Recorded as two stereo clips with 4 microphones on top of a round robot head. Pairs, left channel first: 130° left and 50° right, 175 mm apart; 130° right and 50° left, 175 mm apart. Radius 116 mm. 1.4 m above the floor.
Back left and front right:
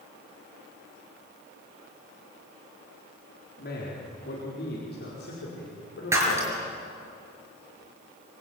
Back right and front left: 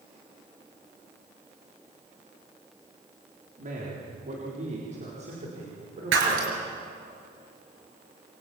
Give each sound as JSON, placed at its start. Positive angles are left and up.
{"t": 3.6, "sound": "a man speaking", "azimuth_deg": 95, "distance_m": 4.0}
{"t": 6.1, "sound": "breaking glass", "azimuth_deg": 30, "distance_m": 6.0}